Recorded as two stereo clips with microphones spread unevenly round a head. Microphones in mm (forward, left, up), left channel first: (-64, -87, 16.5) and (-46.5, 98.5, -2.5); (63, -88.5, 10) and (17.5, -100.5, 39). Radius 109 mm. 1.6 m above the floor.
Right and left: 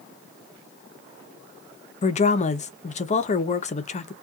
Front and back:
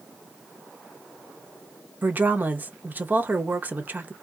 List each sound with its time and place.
2.0 s a woman speaking: 140° right, 0.6 m